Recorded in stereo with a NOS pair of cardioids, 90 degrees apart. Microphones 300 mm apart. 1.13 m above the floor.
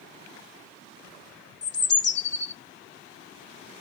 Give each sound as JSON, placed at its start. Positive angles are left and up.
{"t": 1.6, "sound": "a bird", "azimuth_deg": 40, "distance_m": 0.7}